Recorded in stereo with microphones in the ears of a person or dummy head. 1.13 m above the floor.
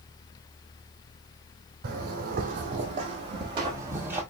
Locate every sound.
1.8 s footsteps: 55° right (ahead or behind), 1.8 m; by 4.2 s 15° right (ahead or behind), 1.4 m